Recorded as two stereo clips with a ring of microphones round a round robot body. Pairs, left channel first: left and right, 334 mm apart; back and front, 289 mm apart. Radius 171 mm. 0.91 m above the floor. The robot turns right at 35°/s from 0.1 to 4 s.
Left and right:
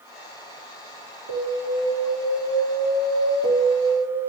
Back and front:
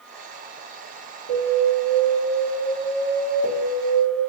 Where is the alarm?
45° right, 3.5 m; by 4.2 s 50° left, 3.5 m.